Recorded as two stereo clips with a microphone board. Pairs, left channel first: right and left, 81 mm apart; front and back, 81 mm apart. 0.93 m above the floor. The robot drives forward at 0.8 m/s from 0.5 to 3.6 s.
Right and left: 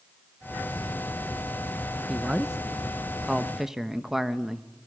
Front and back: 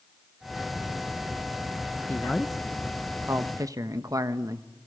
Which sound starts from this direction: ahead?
A man speaking, at 2.1 s.